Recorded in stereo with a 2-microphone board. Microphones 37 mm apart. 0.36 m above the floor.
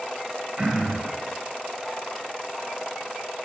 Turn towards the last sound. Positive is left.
turn(degrees=-40)  # may be behind; listen again after turning